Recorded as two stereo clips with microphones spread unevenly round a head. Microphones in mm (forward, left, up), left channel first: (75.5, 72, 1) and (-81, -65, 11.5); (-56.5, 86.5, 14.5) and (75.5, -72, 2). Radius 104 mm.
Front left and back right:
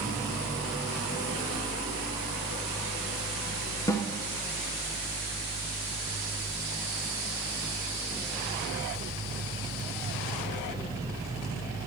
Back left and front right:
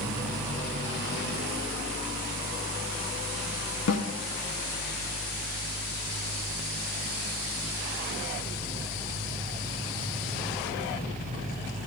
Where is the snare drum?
115° left, 0.7 m.